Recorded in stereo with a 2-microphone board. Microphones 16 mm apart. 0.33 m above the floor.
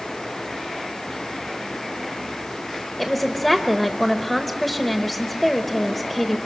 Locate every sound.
3.0 s a woman speaking: 10° left (ahead or behind), 1.0 m